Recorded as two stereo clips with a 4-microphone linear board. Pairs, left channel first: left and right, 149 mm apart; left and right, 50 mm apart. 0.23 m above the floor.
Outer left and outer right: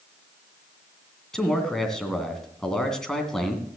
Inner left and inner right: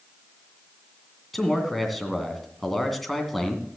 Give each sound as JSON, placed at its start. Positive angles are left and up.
{"t": 1.3, "sound": "a man speaking", "side_deg": 5, "distance_m": 2.0}